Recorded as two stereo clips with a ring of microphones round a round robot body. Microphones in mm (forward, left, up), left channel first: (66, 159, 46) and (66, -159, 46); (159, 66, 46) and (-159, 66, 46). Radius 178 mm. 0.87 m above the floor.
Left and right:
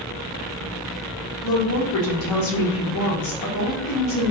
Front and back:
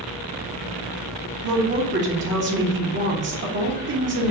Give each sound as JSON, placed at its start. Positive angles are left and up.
{"t": 1.4, "sound": "a woman speaking", "azimuth_deg": 130, "distance_m": 1.0}